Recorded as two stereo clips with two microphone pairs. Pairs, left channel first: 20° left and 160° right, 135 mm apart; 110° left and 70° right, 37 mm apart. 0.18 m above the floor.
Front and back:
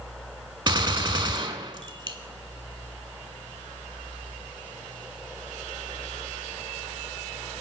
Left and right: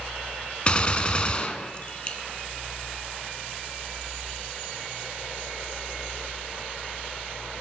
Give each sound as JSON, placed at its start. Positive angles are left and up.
{"t": 0.7, "sound": "a gunshot", "azimuth_deg": 155, "distance_m": 0.6}